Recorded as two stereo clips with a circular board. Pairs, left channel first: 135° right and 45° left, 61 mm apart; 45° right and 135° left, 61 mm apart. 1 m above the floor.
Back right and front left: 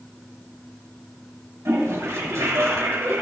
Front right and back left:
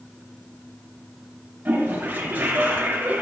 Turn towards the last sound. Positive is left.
turn(degrees=75)